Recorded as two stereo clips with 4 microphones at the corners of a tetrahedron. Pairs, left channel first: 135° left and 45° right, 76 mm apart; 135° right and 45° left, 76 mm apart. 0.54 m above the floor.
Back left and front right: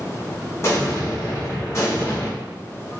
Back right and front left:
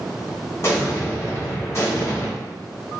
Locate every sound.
0.6 s an explosion: straight behind, 0.9 m